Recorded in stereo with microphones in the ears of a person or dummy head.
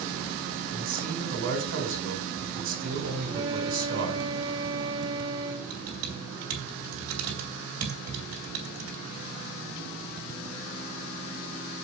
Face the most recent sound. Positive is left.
turn(degrees=-80)